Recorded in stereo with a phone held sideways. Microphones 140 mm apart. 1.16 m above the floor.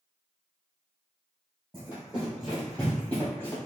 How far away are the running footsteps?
About 1.9 m.